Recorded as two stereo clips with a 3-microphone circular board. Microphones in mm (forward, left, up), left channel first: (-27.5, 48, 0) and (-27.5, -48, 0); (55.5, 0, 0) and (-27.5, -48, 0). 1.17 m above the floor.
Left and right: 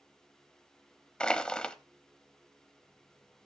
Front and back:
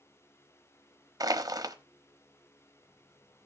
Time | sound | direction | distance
1.2 | crushing | 170° left | 0.9 m